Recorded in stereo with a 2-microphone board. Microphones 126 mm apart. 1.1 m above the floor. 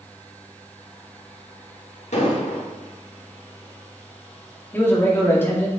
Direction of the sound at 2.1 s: 70° left (ahead or behind).